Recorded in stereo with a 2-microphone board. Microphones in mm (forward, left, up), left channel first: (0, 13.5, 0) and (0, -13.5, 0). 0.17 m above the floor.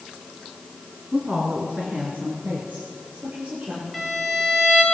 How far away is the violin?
About 3.5 m.